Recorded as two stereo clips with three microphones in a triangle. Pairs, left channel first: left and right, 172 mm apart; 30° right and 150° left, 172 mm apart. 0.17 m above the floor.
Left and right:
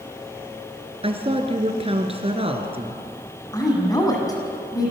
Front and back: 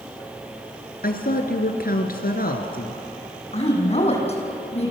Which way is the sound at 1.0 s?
40° right.